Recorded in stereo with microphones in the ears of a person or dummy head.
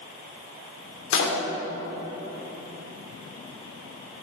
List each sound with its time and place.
1.1 s a door slam: 75° left (ahead or behind), 2.5 m